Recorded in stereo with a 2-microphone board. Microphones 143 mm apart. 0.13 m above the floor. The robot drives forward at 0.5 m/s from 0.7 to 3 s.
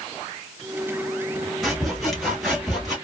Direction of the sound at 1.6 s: Centre (ahead or behind).